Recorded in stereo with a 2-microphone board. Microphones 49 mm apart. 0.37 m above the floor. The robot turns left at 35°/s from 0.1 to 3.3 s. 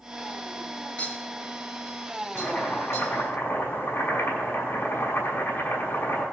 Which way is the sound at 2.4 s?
155° left.